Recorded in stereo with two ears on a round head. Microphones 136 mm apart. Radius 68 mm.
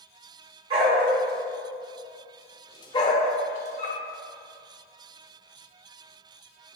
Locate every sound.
0.7 s a dog barking: 40° right (ahead or behind), 1.4 m; by 4.0 s 50° left (ahead or behind), 1.5 m